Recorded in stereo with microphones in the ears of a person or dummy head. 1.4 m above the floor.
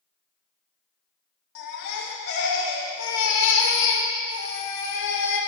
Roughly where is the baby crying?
Left.